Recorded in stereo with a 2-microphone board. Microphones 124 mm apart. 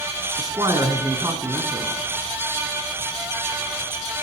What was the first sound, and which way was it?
A man speaking, 30° right (ahead or behind).